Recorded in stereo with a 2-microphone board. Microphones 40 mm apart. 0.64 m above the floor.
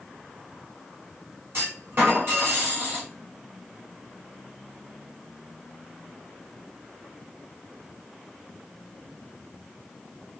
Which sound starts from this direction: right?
A clunk, at 1.5 s.